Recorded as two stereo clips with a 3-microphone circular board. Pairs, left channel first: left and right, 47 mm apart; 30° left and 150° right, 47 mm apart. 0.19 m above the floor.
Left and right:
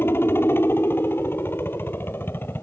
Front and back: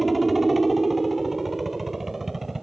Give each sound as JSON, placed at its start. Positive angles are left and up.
{"t": 0.0, "sound": "a helicopter", "azimuth_deg": 120}